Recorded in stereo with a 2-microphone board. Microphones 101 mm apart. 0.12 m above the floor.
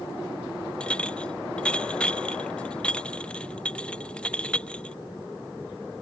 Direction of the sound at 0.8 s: 10° left (ahead or behind).